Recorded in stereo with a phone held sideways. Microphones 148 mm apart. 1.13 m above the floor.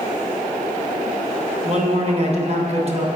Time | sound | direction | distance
1.6 | a man speaking | 45° right (ahead or behind) | 0.8 m